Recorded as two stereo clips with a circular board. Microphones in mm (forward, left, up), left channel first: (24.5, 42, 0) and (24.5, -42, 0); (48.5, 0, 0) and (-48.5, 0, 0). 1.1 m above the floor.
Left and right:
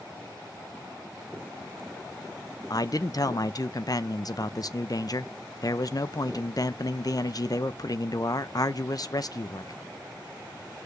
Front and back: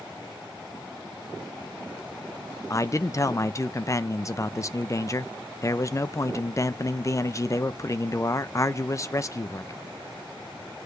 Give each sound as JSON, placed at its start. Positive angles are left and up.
{"t": 2.7, "sound": "a man speaking", "azimuth_deg": 50, "distance_m": 0.6}